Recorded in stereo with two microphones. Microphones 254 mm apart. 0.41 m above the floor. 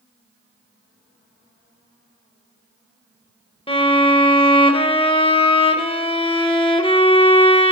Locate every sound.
3.7 s a violin: 20° left (ahead or behind), 0.5 m